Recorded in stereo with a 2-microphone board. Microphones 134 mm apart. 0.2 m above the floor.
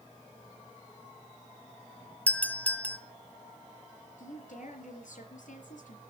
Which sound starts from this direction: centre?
A doorbell, at 2.3 s.